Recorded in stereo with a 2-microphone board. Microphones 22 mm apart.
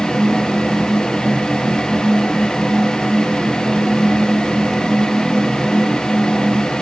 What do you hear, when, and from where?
Only background noise.